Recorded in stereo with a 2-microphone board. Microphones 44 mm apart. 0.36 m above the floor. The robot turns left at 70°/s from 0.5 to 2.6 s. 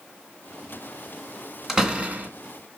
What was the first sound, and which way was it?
A door slam, 5° right.